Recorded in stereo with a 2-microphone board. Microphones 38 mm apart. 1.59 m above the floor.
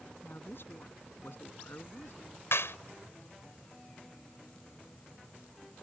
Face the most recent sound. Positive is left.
turn(degrees=80)